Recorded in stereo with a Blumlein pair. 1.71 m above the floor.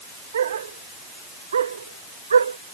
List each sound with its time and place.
0.3 s a dog barking: 65° right; by 2.6 s 70° right